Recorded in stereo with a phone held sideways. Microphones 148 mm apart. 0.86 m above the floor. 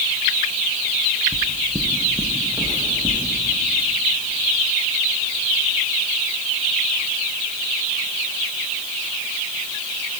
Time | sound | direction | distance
1.3 | footsteps | 5° right (ahead or behind) | 0.9 m